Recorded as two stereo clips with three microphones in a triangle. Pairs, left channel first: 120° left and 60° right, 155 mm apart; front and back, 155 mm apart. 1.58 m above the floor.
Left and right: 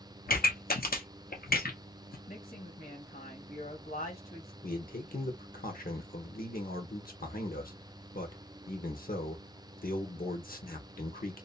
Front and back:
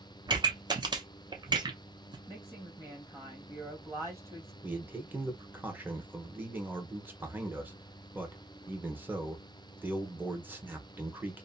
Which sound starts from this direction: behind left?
A pop, at 0.3 s.